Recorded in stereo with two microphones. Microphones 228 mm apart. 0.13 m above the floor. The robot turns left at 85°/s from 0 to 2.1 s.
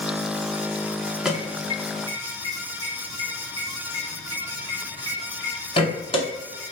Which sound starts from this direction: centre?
An alarm, at 1.2 s.